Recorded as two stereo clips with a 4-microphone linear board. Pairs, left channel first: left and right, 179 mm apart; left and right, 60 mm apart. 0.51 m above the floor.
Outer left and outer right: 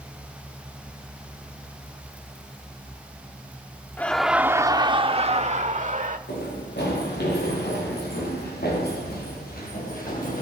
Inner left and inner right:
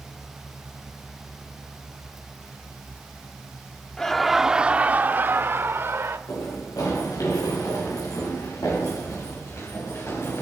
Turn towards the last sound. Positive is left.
turn(degrees=50)  # may be behind; listen again after turning